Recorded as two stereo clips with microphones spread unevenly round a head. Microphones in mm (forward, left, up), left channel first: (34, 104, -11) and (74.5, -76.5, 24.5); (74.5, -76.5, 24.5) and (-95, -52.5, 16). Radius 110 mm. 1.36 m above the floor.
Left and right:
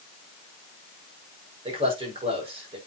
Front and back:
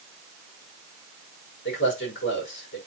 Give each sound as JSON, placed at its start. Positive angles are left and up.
{"t": 1.6, "sound": "a man speaking", "azimuth_deg": -20, "distance_m": 5.0}